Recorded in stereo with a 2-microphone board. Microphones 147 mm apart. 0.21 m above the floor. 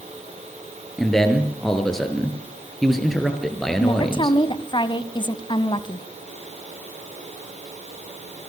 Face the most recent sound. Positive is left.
turn(degrees=35)  # may be behind; listen again after turning